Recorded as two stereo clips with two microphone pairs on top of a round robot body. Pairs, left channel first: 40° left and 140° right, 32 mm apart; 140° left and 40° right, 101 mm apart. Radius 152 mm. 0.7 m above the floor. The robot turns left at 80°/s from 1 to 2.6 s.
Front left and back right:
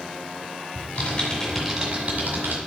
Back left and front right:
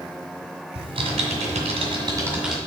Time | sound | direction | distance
0.8 | typing on a keyboard | 5° right | 1.8 m